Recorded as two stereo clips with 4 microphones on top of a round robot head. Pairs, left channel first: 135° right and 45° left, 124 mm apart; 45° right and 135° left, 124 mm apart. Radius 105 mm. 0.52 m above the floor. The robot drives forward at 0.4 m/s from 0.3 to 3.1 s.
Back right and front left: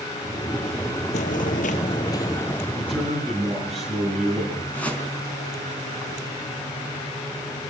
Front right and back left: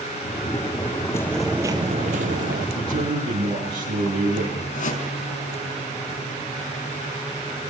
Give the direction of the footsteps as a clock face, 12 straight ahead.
4 o'clock.